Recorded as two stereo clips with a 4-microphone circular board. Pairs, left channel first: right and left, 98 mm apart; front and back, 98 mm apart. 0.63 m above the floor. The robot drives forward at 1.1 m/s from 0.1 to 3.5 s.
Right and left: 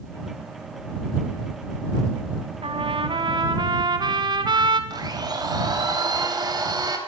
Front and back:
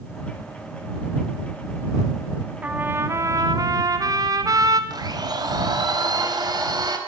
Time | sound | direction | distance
2.6 | a trumpet | 105° left | 1.8 m
4.9 | a blender | 135° left | 4 m